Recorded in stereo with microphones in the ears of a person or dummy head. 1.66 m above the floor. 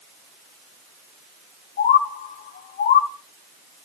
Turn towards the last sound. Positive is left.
turn(degrees=40)  # may be behind; listen again after turning